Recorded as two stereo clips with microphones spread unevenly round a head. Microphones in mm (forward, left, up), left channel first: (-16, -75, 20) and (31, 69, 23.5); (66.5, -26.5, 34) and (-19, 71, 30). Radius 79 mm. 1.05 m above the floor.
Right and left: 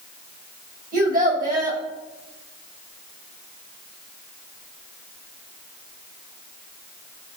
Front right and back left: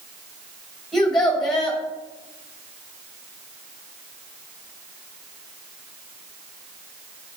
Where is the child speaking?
40° left, 3.5 m.